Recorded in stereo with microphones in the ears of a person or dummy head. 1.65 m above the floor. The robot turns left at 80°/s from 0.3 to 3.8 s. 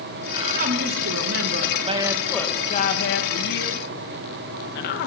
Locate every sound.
0.3 s a woman speaking: 20° right, 2.5 m; by 5.1 s 60° left, 2.5 m